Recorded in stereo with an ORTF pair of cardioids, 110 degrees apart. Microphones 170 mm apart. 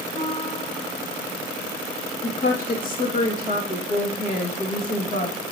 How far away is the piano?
About 3.5 m.